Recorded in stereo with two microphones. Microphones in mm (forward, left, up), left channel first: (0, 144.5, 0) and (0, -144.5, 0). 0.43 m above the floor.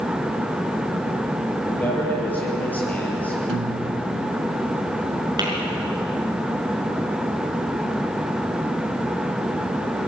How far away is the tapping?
About 6 m.